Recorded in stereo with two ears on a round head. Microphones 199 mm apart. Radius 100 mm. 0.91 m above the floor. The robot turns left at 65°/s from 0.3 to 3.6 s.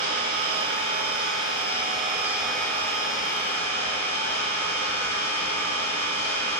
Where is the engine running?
40° right, 2.5 m; by 6.6 s 105° left, 2.5 m.